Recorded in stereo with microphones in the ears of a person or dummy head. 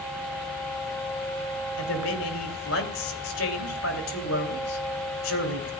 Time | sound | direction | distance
1.8 | a man speaking | 75° left (ahead or behind) | 3 m